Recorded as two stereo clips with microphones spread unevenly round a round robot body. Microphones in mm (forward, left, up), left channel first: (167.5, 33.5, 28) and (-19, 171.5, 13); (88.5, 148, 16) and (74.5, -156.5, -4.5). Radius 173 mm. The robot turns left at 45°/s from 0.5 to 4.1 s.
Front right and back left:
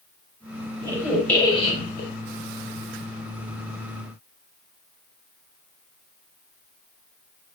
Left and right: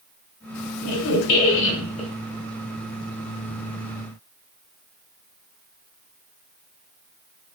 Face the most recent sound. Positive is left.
turn(degrees=-80)